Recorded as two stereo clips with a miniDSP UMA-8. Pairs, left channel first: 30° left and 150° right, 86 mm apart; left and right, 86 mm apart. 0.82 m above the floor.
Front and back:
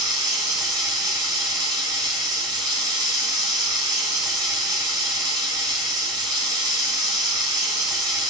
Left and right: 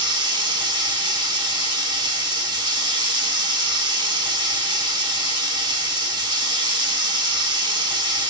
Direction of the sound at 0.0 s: 110° right.